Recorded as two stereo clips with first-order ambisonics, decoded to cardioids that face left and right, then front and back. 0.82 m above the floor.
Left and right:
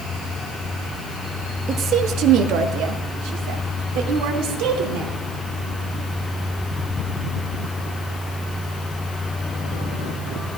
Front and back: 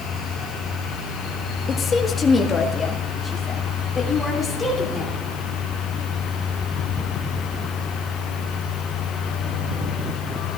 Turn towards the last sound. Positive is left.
turn(degrees=-85)